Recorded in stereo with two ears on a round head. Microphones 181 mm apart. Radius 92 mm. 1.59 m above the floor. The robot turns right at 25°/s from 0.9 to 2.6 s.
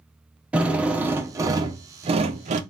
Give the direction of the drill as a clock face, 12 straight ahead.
6 o'clock.